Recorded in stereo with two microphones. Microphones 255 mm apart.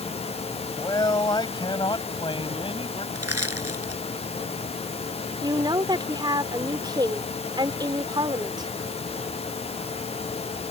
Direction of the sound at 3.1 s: 65° right (ahead or behind).